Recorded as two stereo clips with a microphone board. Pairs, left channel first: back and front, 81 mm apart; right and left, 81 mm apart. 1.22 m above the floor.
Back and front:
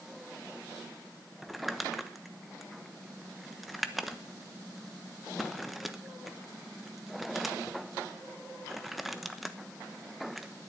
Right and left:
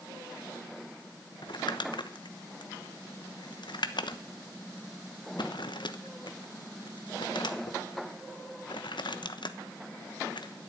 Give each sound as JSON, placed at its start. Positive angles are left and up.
{"t": 1.4, "sound": "crumpling", "azimuth_deg": -90, "distance_m": 1.0}